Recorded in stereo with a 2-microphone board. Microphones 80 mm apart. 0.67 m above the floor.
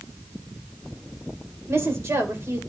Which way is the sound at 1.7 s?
35° right (ahead or behind).